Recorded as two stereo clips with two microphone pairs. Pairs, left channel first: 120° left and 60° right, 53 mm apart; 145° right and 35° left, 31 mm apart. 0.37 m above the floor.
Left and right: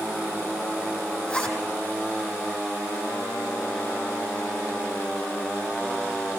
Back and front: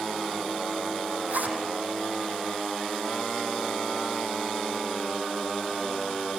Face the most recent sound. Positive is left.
turn(degrees=50)